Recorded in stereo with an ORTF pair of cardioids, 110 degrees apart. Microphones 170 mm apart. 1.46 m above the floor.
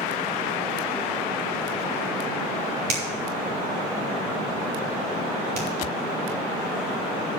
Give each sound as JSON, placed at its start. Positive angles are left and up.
{"t": 2.9, "sound": "a finger snap", "azimuth_deg": -70, "distance_m": 3.0}